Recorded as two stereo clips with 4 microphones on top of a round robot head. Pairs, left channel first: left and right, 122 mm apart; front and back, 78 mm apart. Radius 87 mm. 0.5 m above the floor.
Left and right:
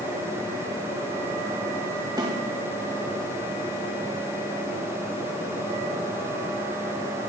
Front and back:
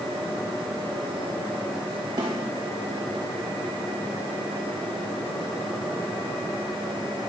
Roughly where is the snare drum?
Behind right.